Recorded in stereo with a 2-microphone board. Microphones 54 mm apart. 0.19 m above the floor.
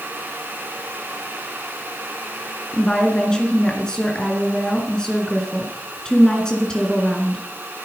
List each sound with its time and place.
2.7 s a woman speaking: 15° left (ahead or behind), 2.5 m